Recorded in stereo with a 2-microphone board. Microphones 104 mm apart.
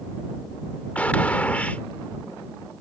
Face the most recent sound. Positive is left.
turn(degrees=15)  # may be behind; listen again after turning